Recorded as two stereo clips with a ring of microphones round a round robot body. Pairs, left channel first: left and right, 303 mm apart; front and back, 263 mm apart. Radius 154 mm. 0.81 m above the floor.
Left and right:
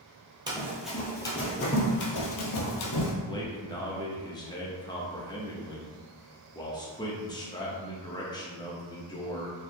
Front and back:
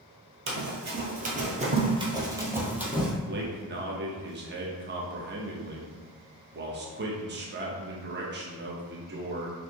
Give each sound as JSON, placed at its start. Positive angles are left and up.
{"t": 0.5, "sound": "running footsteps", "azimuth_deg": -160, "distance_m": 1.0}
{"t": 3.3, "sound": "a man speaking", "azimuth_deg": 160, "distance_m": 0.7}